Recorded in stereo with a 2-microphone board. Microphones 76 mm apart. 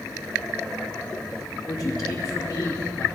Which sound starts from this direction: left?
A man speaking, at 1.7 s.